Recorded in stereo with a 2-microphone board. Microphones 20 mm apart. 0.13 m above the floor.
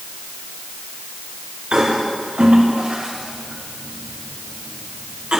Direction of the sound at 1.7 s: 60° right (ahead or behind).